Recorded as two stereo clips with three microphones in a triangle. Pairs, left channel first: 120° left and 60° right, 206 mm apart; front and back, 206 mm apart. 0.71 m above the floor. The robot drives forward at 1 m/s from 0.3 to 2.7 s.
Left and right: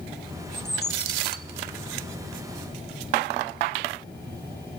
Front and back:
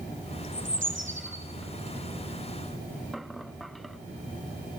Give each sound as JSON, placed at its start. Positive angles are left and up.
{"t": 0.5, "sound": "a bird", "azimuth_deg": 155, "distance_m": 4.0}